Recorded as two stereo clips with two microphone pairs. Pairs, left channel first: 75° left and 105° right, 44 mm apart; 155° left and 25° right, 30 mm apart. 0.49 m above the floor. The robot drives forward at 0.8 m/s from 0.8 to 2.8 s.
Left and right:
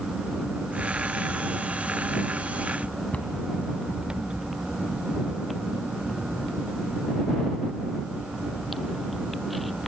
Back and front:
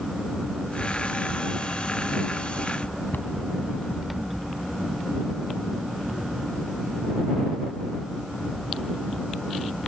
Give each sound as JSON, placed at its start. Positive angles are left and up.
{"t": 3.1, "sound": "a cupboard door", "azimuth_deg": 135, "distance_m": 2.0}